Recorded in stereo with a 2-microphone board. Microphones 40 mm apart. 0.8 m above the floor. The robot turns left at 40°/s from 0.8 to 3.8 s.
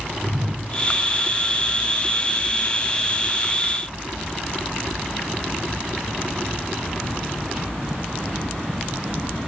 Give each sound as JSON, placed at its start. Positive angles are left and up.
{"t": 0.2, "sound": "a whoosh", "side_deg": -15, "distance_m": 2.5}